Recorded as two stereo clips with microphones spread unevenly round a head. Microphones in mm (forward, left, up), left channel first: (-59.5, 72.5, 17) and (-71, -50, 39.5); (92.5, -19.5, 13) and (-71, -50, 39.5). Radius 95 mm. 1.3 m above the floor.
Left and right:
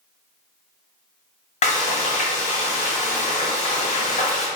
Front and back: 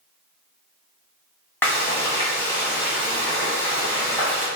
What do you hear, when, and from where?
1.6 s frying: 95° left, 1.5 m